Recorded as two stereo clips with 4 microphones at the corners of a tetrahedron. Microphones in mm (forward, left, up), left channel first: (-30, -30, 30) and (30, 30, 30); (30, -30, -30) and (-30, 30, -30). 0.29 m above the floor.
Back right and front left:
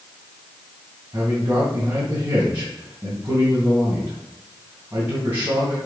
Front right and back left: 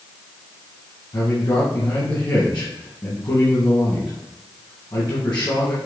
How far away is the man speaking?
About 2.5 m.